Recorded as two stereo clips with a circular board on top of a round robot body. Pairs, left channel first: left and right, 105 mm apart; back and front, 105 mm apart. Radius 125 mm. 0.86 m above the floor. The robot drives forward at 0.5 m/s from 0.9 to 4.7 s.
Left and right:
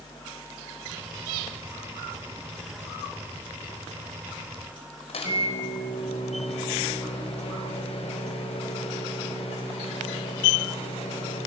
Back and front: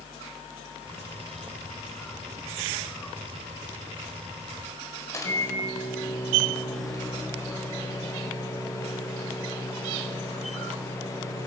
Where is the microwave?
120° left, 4 m.